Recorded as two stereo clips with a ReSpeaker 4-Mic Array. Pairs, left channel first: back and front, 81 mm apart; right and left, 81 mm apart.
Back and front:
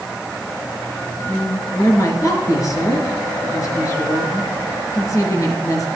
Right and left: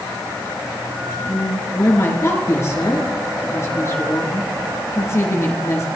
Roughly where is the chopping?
I don't hear chopping.